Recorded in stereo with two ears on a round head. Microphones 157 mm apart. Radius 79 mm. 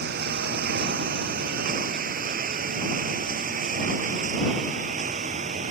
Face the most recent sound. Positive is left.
turn(degrees=-45)  # may be behind; listen again after turning